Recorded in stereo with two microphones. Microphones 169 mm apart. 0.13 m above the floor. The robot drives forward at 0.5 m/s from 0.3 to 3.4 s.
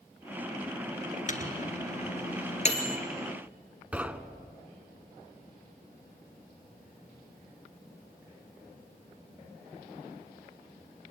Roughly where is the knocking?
Centre.